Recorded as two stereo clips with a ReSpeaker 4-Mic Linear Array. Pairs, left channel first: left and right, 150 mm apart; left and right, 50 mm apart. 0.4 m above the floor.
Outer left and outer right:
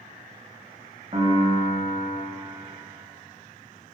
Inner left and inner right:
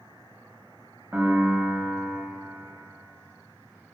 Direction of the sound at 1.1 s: 40° right (ahead or behind).